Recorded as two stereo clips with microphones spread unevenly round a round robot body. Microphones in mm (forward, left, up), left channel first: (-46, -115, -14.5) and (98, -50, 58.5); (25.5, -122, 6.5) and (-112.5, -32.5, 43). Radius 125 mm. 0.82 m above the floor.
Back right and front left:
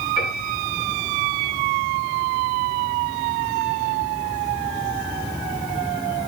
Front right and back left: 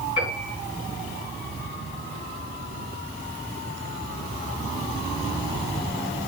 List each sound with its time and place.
0.2 s a piano: 10° left, 8 m